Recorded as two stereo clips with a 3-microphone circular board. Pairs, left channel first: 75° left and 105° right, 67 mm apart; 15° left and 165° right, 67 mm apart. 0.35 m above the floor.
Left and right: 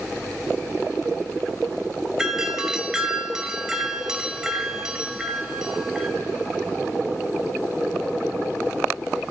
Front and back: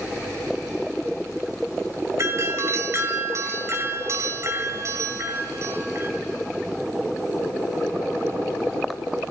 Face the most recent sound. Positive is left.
turn(degrees=180)